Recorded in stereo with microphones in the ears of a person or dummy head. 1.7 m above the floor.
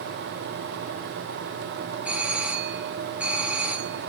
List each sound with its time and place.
2.0 s a doorbell: 5° right (ahead or behind), 1.0 m